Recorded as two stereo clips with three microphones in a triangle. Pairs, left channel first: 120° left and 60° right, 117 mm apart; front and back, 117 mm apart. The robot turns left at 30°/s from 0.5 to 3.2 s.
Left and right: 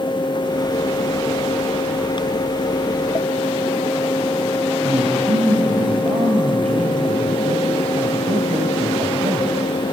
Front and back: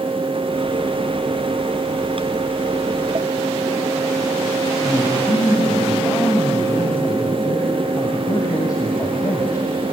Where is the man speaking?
55° right, 2 m.